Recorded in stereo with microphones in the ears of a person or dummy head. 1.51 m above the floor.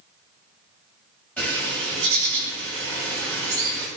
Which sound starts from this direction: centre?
A bird, at 1.4 s.